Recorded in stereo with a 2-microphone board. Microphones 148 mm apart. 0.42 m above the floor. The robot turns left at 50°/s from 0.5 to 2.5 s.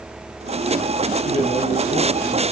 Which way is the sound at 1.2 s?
105° left.